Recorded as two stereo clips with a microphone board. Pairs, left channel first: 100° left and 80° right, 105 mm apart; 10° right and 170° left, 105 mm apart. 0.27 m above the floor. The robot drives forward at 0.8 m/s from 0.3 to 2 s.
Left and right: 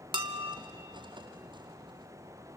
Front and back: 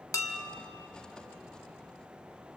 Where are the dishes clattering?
60° right, 1.2 m; by 0.6 s 75° right, 1.1 m.